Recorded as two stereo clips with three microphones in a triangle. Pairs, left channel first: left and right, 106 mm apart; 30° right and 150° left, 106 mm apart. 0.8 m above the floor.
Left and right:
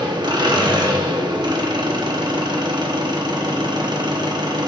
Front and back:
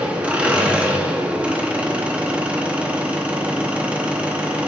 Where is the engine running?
130° right, 0.9 m.